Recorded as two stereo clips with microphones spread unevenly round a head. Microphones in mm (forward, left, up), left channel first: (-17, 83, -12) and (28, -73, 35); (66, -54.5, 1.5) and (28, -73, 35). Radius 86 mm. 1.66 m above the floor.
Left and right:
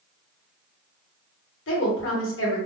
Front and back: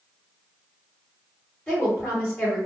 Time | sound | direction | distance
1.7 | a woman speaking | 125° left | 1.1 m